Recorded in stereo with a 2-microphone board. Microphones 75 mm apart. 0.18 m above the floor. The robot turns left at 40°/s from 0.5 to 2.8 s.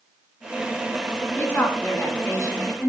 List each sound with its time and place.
1.4 s a woman speaking: 145° left, 1.6 m; by 2.9 s 85° left, 1.6 m